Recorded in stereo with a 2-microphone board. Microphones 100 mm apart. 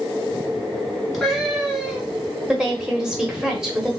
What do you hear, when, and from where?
1.1 s a cat meowing: centre (ahead or behind), 1.3 m
2.5 s a woman speaking: 5° right (ahead or behind), 1.0 m